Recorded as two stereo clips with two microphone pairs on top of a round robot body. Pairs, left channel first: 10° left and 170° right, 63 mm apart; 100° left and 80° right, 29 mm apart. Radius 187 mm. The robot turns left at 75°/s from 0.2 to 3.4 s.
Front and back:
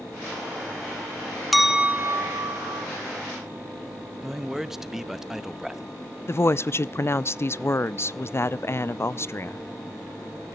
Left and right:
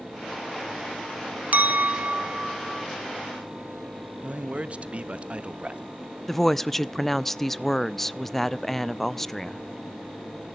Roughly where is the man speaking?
Right.